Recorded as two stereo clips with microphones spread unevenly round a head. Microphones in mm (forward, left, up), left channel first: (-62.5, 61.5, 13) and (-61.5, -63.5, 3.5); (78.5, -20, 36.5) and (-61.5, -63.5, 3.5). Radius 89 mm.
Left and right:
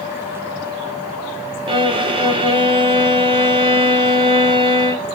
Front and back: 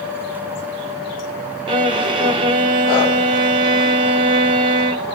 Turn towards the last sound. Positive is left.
turn(degrees=-125)